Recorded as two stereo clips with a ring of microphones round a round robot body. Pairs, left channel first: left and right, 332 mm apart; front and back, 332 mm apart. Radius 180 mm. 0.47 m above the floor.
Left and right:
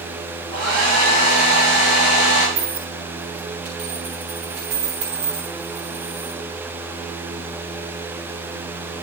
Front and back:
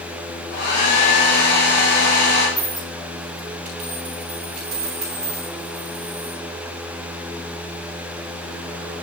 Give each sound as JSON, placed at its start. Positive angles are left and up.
{"t": 0.5, "sound": "a hair dryer", "azimuth_deg": -50, "distance_m": 5.5}
{"t": 2.6, "sound": "a dropped coin", "azimuth_deg": -135, "distance_m": 6.0}